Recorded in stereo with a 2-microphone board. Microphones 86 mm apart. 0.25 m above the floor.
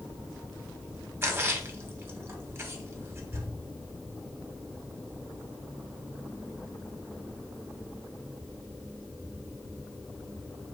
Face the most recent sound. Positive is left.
turn(degrees=-30)  # may be behind; listen again after turning